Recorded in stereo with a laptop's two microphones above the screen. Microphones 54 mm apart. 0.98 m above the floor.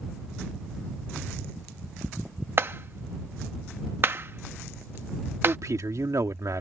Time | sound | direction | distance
2.6 | a clap | 45° right (ahead or behind) | ?
5.4 | a man speaking | 75° right (ahead or behind) | ?